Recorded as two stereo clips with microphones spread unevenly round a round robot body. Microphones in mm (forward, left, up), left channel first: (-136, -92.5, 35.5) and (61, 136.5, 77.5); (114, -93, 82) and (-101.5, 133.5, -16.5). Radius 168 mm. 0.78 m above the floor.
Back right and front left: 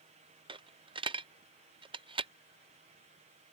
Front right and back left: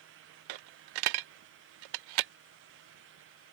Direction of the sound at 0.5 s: 125° left.